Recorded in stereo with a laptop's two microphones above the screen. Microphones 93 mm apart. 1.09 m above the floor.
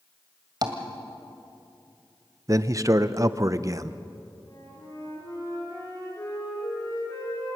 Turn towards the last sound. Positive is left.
turn(degrees=45)  # may be behind; listen again after turning